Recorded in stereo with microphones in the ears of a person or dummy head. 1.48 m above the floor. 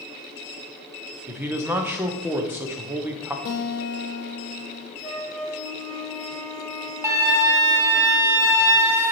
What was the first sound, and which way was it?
A man speaking, 10° right (ahead or behind).